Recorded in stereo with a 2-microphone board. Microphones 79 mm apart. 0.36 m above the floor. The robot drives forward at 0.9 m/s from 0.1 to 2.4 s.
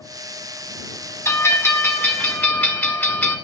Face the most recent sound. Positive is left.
turn(degrees=25)  # may be behind; listen again after turning